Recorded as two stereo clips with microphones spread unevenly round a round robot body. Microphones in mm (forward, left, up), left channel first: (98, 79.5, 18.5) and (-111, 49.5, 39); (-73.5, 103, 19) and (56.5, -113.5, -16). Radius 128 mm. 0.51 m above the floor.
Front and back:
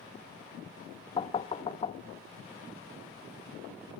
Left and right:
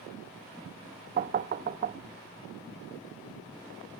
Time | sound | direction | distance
1.2 | knocking | 35° right | 0.6 m